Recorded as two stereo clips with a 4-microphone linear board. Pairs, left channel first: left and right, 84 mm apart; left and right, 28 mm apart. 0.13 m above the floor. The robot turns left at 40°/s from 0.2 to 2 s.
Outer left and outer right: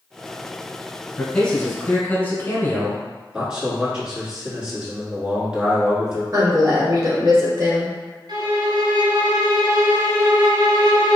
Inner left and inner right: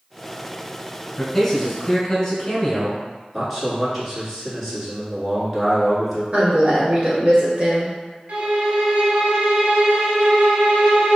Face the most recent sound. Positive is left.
turn(degrees=-60)  # may be behind; listen again after turning